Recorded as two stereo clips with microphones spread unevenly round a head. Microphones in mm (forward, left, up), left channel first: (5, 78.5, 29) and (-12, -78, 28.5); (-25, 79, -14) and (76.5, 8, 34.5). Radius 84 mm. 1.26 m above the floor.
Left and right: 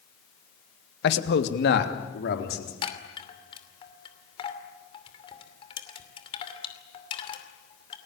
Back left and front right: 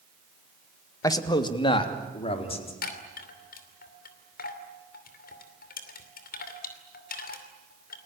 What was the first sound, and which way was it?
A man speaking, 85° left.